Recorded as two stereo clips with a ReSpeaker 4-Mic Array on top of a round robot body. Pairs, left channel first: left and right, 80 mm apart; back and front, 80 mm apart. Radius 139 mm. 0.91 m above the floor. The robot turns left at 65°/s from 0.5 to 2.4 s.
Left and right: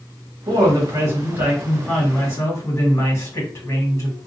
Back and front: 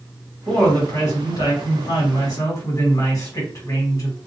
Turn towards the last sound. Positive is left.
turn(degrees=140)